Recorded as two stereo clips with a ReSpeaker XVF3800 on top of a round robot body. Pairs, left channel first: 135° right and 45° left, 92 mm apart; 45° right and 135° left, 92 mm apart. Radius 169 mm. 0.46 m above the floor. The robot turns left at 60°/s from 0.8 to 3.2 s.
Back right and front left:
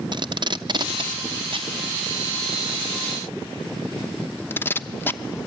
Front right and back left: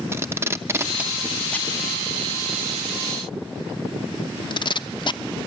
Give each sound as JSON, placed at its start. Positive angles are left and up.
{"t": 0.1, "sound": "tape being pulled", "azimuth_deg": 75, "distance_m": 1.0}